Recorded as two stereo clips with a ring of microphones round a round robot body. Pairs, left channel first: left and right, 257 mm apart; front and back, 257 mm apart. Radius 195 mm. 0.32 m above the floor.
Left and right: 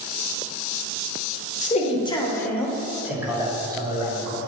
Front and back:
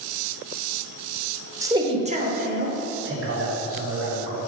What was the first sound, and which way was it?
A man speaking, 115° left.